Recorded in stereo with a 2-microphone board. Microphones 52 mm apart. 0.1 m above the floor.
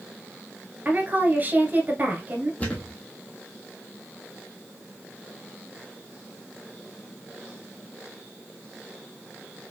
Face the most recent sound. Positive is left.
turn(degrees=25)  # may be behind; listen again after turning